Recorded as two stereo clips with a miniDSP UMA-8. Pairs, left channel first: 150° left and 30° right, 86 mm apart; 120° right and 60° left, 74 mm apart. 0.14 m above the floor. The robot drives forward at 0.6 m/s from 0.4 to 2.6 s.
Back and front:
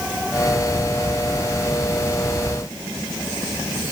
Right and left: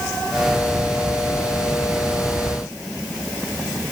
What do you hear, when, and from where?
Only background noise.